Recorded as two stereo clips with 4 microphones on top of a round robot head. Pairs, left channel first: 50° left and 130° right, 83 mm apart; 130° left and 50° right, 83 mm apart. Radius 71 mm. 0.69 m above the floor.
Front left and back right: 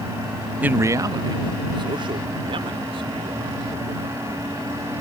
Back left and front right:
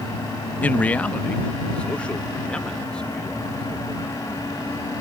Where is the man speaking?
Straight behind; by 4.9 s 150° right.